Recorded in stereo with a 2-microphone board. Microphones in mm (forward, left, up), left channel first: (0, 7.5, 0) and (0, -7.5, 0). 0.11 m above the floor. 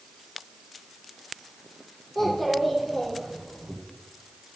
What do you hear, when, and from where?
2.1 s a child speaking: 10° left (ahead or behind), 4 m; by 3.8 s 20° left (ahead or behind), 4 m